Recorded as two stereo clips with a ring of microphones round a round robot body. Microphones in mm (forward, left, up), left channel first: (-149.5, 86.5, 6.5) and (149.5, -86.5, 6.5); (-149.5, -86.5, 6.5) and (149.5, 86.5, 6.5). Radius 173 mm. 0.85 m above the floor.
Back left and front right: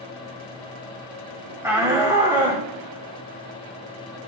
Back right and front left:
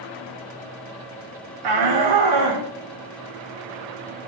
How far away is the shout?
About 1.8 m.